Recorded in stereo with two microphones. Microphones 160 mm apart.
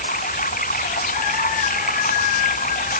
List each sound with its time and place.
0.0 s running water: 65° left (ahead or behind)